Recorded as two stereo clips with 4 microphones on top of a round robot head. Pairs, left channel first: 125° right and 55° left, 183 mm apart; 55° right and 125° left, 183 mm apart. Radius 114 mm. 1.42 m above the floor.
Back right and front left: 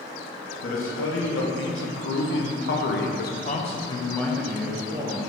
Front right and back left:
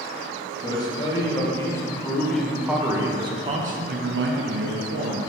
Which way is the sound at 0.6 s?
120° right.